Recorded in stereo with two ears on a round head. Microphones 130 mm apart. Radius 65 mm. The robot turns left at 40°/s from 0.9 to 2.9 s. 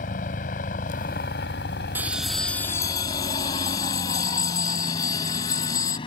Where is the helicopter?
60° left (ahead or behind); by 6.1 s 35° left (ahead or behind).